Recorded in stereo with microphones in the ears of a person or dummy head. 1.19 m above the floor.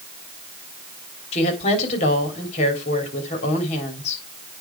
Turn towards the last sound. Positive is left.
turn(degrees=40)  # may be behind; listen again after turning